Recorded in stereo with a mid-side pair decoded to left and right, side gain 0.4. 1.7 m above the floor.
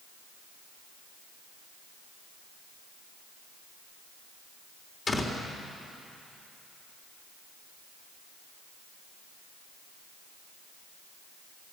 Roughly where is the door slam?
Ahead left.